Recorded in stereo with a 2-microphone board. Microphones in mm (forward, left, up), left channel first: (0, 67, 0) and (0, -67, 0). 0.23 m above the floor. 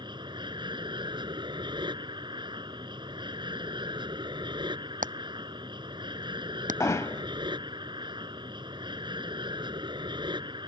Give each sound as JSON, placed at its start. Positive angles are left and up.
{"t": 0.0, "sound": "an aircraft", "side_deg": -35}
{"t": 5.0, "sound": "hammering", "side_deg": -85}
{"t": 6.8, "sound": "hammering", "side_deg": 25}